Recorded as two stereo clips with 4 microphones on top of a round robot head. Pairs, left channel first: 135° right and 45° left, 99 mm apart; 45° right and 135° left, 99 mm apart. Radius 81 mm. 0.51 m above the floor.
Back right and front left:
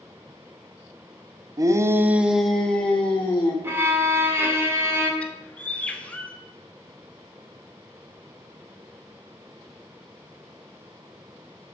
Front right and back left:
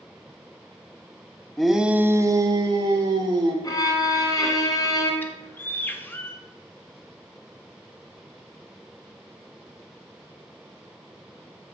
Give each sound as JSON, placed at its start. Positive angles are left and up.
{"t": 1.6, "sound": "a shout", "azimuth_deg": 40, "distance_m": 0.7}
{"t": 3.6, "sound": "a violin", "azimuth_deg": -10, "distance_m": 1.6}
{"t": 5.2, "sound": "a bird", "azimuth_deg": -80, "distance_m": 1.0}